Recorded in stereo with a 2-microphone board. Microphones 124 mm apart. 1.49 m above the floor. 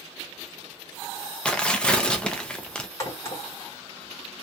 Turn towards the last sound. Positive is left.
turn(degrees=25)  # may be behind; listen again after turning